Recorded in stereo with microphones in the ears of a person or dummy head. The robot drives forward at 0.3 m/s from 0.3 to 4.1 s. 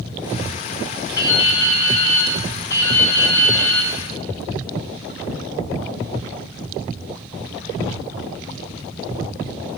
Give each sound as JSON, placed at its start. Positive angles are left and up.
{"t": 1.2, "sound": "dripping", "side_deg": 25, "distance_m": 2.5}